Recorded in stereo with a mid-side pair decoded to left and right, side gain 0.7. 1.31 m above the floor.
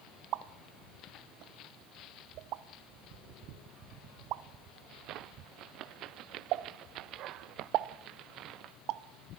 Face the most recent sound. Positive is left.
turn(degrees=-60)